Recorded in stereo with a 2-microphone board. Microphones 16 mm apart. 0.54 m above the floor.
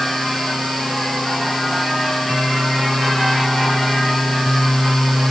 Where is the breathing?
No breathing in this recording.